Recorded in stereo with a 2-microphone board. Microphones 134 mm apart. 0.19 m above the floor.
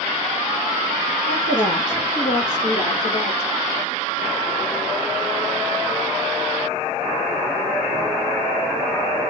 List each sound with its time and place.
1.3 s a woman speaking: 75° left (ahead or behind), 3.5 m; by 3.5 s 50° left (ahead or behind), 2.5 m